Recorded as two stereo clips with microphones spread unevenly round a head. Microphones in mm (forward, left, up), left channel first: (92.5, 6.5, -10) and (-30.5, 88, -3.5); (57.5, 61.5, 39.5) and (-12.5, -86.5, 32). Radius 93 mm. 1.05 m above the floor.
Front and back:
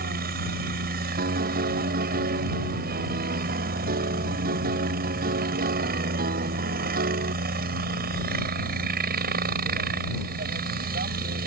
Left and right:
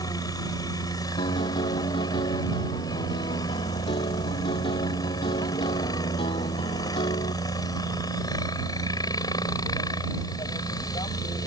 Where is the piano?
130° left.